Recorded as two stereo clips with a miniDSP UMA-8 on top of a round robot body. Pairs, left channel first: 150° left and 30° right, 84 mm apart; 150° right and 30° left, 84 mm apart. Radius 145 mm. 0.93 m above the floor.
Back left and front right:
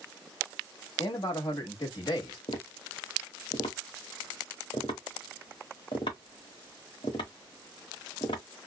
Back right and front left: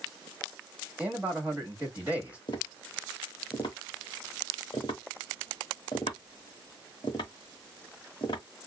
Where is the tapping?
170° left, 0.8 m.